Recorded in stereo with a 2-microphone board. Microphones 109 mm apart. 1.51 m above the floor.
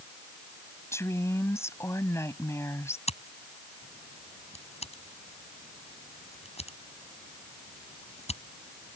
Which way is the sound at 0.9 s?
25° left (ahead or behind).